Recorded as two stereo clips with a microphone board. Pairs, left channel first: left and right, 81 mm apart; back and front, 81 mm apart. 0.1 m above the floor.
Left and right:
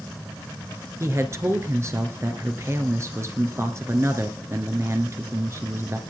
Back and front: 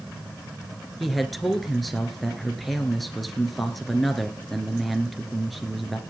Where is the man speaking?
90° right, 2 m.